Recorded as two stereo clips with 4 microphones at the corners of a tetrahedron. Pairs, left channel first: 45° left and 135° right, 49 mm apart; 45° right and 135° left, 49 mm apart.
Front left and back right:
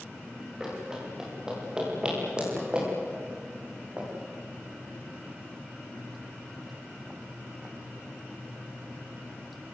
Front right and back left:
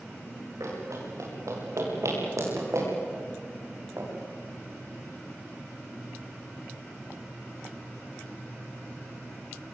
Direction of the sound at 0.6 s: 145° left.